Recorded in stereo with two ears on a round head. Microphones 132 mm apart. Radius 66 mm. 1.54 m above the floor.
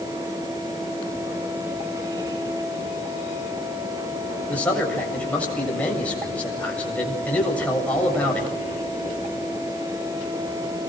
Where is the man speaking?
10° left (ahead or behind), 7 m.